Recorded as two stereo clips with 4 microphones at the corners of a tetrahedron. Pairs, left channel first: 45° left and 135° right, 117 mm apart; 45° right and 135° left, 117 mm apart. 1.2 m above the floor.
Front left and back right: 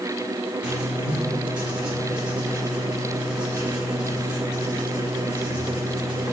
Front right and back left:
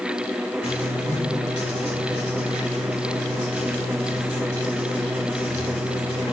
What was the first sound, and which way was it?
Writing, 55° right.